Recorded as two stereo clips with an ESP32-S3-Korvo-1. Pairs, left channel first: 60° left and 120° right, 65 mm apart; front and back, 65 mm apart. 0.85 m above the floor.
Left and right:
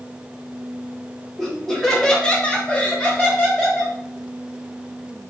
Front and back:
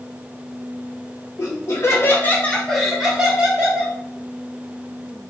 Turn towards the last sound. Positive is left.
turn(degrees=130)